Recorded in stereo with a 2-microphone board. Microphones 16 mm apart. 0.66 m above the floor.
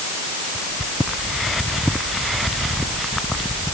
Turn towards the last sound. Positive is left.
No sound to turn to.